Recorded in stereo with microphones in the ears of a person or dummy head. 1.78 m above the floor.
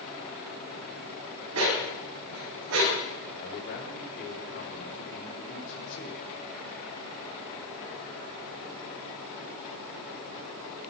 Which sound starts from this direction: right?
A dog barking, at 1.5 s.